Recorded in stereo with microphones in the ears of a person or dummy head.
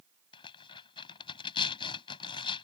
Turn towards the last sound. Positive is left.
turn(degrees=30)  # may be behind; listen again after turning